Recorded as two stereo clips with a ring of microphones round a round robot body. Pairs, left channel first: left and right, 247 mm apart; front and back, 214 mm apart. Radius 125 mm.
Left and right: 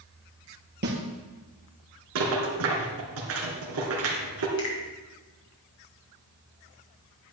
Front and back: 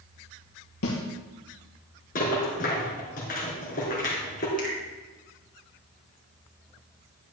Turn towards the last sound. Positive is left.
turn(degrees=50)